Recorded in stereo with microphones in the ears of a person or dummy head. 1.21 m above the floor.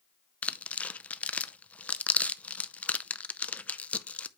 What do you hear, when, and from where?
0.4 s tearing paper: 5° left (ahead or behind), 0.5 m